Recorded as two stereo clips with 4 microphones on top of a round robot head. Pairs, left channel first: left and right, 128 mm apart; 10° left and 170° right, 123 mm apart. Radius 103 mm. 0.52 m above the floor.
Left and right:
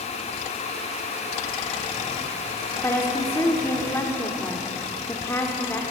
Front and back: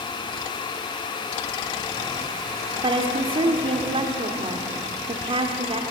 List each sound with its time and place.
2.8 s a woman speaking: 160° left, 1.8 m